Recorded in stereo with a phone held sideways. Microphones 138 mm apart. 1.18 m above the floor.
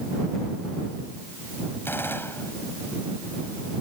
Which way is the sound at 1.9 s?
15° left (ahead or behind).